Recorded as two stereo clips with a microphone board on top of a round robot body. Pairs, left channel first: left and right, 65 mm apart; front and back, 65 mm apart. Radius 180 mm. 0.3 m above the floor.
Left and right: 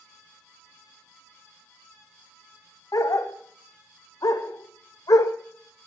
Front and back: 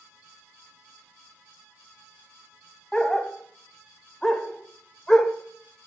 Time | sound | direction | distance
2.9 | a dog barking | 80° left | 0.7 m